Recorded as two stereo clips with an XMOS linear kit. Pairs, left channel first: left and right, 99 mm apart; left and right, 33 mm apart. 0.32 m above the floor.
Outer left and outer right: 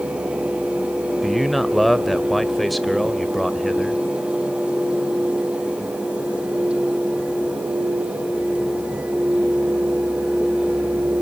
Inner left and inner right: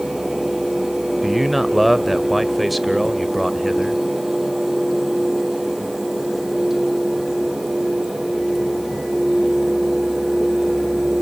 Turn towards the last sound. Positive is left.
turn(degrees=0)  # may be behind; listen again after turning